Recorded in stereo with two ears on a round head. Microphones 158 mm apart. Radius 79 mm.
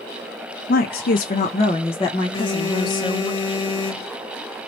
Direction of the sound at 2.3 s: 30° left (ahead or behind).